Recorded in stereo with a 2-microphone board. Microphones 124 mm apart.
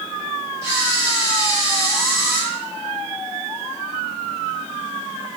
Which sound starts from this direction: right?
A camera shutter, at 0.6 s.